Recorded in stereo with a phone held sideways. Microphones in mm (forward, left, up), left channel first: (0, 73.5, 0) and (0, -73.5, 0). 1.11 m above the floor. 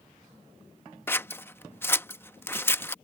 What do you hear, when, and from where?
1.1 s scissors: 15° left (ahead or behind)